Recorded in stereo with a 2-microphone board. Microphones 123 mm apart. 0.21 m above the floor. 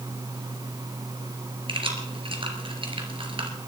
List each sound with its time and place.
1.7 s keys jangling: 45° right (ahead or behind), 2 m